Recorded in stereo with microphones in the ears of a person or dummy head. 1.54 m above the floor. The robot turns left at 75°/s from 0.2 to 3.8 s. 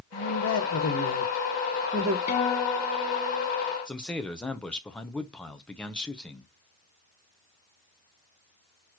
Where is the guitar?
40° left, 0.8 m; by 3.5 s 50° right, 0.8 m.